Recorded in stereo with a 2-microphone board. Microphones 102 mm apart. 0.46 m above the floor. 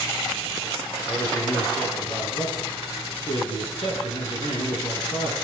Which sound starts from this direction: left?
A man speaking, at 1.1 s.